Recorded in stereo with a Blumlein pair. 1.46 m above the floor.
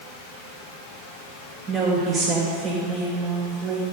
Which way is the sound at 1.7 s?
20° right.